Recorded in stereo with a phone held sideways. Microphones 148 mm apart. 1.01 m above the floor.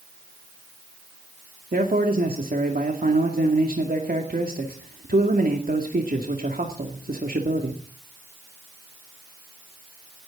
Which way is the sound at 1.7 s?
75° right (ahead or behind).